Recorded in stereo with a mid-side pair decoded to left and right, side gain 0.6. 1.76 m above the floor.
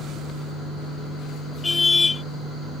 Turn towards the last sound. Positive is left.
turn(degrees=25)